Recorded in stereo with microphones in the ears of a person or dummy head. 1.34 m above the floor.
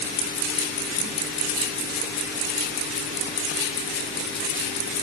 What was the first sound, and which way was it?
Only background noise.